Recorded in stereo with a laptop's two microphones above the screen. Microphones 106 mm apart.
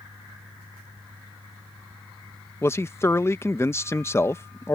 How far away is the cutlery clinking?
No cutlery clinking in this recording.